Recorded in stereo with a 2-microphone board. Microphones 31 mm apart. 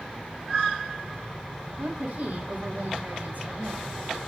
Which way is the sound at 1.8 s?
60° right (ahead or behind).